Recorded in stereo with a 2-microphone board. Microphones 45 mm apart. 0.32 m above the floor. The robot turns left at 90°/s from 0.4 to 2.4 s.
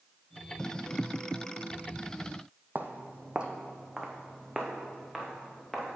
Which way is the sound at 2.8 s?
45° right (ahead or behind).